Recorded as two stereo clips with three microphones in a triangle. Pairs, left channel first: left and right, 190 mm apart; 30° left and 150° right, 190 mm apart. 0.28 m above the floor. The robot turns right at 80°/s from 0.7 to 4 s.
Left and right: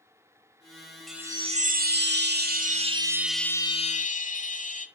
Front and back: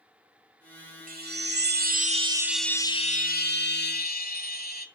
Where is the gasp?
No gasp in this recording.